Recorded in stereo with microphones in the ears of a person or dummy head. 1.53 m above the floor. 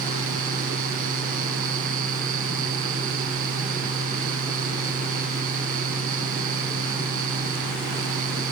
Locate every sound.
0.0 s a fan: 50° right (ahead or behind)